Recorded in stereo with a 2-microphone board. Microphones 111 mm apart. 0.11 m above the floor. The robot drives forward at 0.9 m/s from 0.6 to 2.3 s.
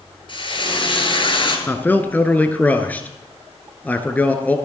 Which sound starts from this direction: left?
Frying, at 0.3 s.